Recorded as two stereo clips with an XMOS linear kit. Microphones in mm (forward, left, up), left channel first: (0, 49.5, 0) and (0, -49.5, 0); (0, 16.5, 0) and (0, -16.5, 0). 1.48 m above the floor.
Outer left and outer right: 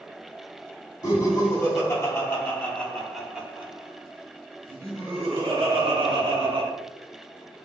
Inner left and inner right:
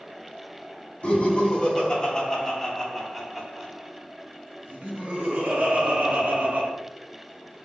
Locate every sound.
1.0 s laughter: 45° left (ahead or behind), 1.7 m; by 6.7 s 80° right, 2.0 m